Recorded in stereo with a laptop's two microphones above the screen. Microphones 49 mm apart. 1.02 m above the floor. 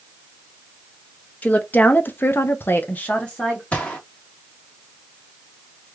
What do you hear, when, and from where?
1.4 s a woman speaking: 30° left (ahead or behind), 1.1 m; by 3.6 s 15° left (ahead or behind), 1.1 m
3.7 s a gunshot: 25° left (ahead or behind), 1.4 m